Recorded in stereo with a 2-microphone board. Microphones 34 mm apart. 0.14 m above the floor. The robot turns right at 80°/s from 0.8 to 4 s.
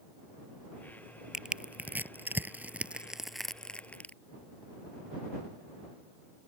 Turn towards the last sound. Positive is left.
turn(degrees=45)  # may be behind; listen again after turning